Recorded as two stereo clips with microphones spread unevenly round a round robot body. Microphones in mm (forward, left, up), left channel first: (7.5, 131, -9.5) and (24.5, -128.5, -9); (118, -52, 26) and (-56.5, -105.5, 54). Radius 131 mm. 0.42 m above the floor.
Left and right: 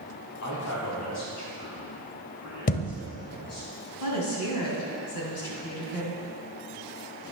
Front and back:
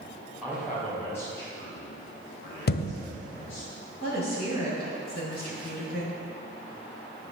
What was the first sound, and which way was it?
A man speaking, 105° left.